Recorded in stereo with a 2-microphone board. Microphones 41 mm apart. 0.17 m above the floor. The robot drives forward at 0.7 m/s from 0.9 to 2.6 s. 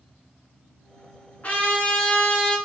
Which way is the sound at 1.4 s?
35° left (ahead or behind).